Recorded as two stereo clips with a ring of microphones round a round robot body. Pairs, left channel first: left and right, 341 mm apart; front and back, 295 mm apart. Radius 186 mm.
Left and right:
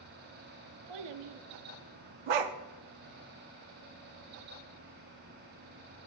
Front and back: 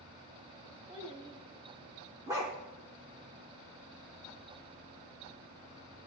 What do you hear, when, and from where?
0.9 s a child speaking: 105° right, 0.8 m
2.3 s a dog barking: 100° right, 0.6 m